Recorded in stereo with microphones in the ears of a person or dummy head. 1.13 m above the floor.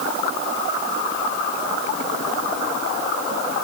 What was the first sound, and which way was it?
Only background noise.